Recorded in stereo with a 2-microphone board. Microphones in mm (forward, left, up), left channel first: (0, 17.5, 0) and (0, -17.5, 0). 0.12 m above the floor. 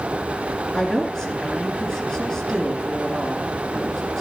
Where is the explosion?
I don't hear an explosion.